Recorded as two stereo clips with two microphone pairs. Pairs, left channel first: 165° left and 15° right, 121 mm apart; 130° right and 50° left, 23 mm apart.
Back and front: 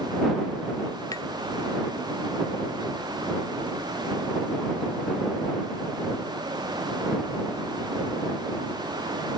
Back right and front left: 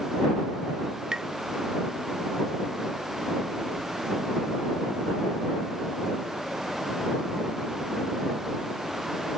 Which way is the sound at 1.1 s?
105° left.